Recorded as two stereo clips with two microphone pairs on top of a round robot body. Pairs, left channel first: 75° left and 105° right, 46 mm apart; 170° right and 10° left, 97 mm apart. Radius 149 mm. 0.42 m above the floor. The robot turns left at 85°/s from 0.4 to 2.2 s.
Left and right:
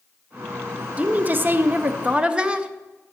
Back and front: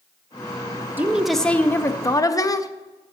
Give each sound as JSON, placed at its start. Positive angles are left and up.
{"t": 1.0, "sound": "a woman speaking", "azimuth_deg": -55, "distance_m": 0.9}